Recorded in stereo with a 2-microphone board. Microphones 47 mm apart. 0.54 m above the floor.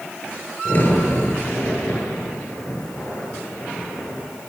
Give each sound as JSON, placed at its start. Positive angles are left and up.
{"t": 0.7, "sound": "a crack", "side_deg": 40, "distance_m": 10.0}